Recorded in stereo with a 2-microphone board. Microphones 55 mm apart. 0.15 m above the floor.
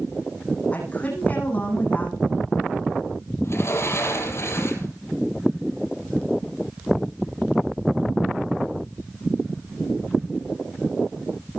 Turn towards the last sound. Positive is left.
turn(degrees=50)  # may be behind; listen again after turning